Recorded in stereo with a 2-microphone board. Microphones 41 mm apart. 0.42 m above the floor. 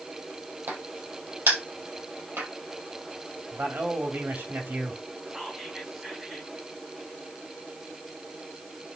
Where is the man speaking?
65° right (ahead or behind), 2.0 m.